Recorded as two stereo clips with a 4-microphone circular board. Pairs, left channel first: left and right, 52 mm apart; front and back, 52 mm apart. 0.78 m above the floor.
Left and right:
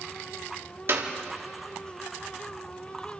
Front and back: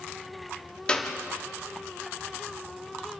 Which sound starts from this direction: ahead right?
A clap, at 0.9 s.